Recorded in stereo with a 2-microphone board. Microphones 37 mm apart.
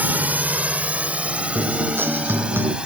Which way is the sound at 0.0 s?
50° right (ahead or behind).